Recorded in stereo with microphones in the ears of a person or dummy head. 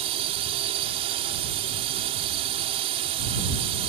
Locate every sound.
0.0 s a drone: 40° right (ahead or behind)